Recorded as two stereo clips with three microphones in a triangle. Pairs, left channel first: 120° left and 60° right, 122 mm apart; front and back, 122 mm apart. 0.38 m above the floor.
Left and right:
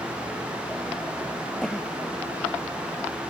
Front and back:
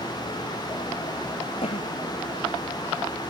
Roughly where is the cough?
Ahead left.